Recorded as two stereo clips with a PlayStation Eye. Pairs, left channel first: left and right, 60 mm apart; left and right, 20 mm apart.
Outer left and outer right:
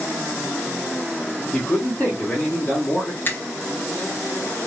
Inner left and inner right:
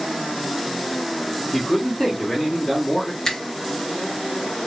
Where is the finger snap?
35° left (ahead or behind), 1.2 m.